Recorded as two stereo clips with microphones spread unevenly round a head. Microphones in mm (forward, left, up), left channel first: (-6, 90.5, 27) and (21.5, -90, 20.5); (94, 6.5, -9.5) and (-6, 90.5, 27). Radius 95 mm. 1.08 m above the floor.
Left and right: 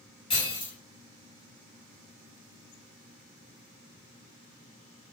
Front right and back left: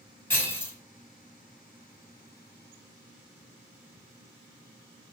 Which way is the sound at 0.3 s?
35° left.